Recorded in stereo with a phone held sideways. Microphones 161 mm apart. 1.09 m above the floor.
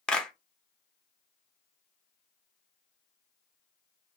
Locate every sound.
0.1 s a clap: 5° left (ahead or behind), 0.6 m